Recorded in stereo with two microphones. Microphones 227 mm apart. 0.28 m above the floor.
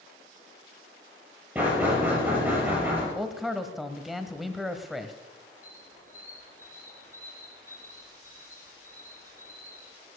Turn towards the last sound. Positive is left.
turn(degrees=80)